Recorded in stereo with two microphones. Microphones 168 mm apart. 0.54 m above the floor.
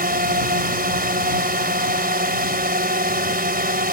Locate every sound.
0.0 s a drone: 65° right (ahead or behind)